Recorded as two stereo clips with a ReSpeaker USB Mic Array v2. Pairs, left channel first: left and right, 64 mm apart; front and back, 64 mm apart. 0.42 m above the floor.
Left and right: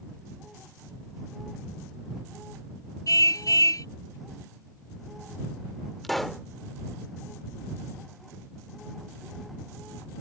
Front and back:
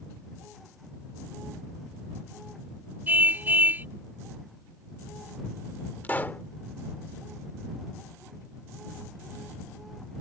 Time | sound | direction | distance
3.1 | a car horn | 120° left | ?
6.0 | a pop | 5° left | ?